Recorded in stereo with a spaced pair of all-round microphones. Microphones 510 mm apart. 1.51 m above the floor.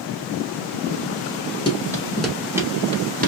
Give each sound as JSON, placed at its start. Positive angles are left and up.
{"t": 1.7, "sound": "running footsteps", "side_deg": 10, "distance_m": 1.5}